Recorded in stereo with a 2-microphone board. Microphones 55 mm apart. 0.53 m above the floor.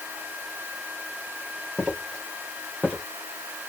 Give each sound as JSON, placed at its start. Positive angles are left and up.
{"t": 1.8, "sound": "footsteps", "side_deg": -10, "distance_m": 3.5}